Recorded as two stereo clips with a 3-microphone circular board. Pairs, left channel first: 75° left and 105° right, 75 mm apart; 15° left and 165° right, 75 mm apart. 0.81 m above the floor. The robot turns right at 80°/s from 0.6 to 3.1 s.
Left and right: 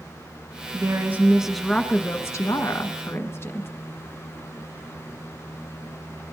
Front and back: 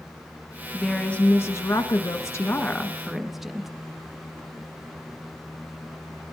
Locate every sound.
0.7 s a woman speaking: 80° right, 1.2 m; by 3.7 s 110° left, 1.2 m